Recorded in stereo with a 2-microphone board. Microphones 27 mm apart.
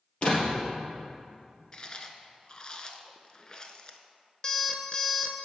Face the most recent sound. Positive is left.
turn(degrees=30)  # may be behind; listen again after turning